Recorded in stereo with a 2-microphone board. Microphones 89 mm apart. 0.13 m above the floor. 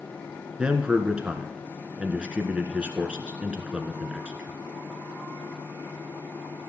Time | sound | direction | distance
0.6 | a man speaking | 10° right (ahead or behind) | 1.3 m